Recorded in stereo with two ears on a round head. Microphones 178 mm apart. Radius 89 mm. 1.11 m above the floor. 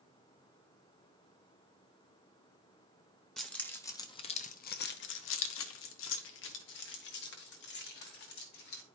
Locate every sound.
3.4 s keys jangling: 5° left (ahead or behind), 1.0 m; by 8.8 s 50° left (ahead or behind), 2.5 m